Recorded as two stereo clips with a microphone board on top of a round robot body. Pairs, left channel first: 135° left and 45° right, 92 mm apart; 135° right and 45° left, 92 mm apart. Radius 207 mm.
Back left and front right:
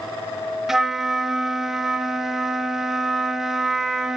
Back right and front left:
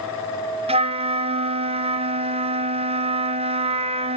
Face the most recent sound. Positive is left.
turn(degrees=40)